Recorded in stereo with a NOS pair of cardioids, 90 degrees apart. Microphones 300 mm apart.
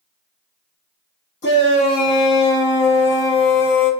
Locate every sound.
1.4 s a shout: 35° left, 2 m